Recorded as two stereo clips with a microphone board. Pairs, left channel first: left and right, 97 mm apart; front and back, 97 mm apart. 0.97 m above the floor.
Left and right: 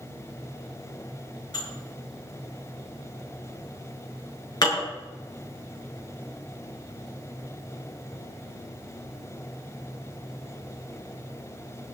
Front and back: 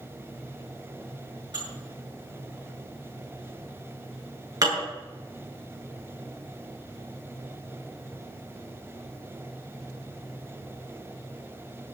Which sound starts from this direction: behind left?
Dishes clattering, at 1.5 s.